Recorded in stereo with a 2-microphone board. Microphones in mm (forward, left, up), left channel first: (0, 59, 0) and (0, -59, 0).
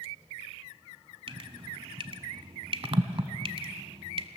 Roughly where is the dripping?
Right.